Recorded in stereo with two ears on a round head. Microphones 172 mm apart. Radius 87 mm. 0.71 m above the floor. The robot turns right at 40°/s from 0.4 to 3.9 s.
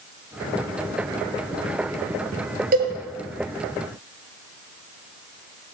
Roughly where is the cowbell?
Right.